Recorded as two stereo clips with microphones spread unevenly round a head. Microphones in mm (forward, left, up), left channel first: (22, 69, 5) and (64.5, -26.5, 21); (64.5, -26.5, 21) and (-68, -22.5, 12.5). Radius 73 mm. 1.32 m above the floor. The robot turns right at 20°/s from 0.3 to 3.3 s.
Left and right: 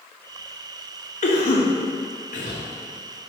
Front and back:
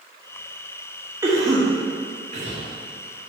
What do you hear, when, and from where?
1.2 s a cough: 105° left, 1.6 m; by 2.6 s 135° left, 1.6 m